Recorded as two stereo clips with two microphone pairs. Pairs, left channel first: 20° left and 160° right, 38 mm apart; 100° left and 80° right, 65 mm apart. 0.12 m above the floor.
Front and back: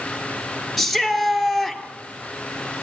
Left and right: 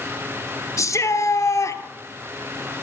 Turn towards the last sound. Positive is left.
turn(degrees=110)